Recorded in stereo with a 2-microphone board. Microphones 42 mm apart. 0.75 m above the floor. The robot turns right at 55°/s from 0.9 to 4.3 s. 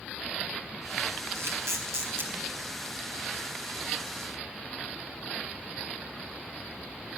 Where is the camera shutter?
70° right (ahead or behind), 4 m; by 2.3 s 55° right (ahead or behind), 4 m.